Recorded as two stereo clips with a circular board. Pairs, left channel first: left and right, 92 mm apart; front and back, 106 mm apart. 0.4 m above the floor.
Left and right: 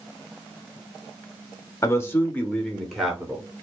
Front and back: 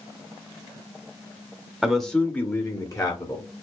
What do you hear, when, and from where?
1.8 s a man speaking: 95° left, 0.8 m; by 3.5 s 15° right, 1.1 m